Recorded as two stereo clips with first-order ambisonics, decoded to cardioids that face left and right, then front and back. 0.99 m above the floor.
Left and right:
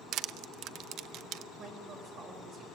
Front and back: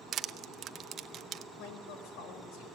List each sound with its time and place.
0.1 s crushing: 125° right, 0.6 m
1.6 s a woman speaking: 30° right, 5 m